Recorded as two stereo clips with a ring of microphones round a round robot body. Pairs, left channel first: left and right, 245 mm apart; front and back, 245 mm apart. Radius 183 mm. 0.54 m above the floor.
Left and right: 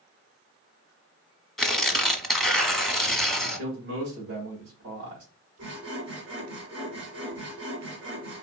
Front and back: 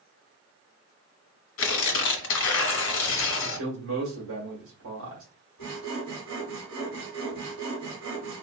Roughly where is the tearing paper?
Ahead.